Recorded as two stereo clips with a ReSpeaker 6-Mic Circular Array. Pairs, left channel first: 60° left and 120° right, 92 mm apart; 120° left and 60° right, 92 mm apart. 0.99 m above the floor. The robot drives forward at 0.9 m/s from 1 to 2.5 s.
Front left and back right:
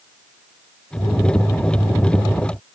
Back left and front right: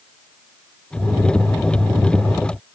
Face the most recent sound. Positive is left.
No sound to turn to.